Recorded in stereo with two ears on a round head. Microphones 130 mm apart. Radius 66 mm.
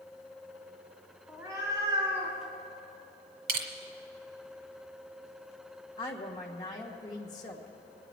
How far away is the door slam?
I don't hear a door slam.